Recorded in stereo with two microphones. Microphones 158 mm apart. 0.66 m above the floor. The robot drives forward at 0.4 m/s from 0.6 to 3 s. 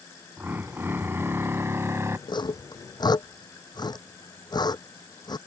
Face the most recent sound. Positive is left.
turn(degrees=25)  # may be behind; listen again after turning